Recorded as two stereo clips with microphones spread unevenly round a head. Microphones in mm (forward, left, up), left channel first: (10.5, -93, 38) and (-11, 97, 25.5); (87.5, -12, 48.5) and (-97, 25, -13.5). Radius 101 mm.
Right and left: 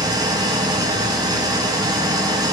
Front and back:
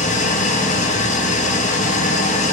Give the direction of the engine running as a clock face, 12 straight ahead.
11 o'clock.